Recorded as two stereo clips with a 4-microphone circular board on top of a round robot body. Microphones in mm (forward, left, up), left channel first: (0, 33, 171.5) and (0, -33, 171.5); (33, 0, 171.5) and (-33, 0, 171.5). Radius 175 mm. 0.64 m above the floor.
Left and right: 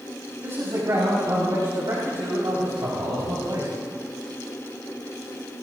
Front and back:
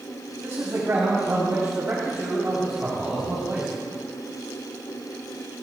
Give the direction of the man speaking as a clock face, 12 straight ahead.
4 o'clock.